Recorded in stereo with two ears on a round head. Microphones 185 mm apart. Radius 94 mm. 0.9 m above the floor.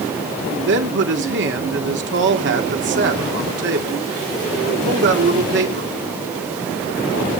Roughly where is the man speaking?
Right.